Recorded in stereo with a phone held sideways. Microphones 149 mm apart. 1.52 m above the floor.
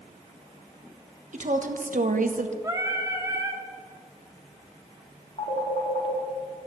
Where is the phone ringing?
50° left (ahead or behind), 2.5 m.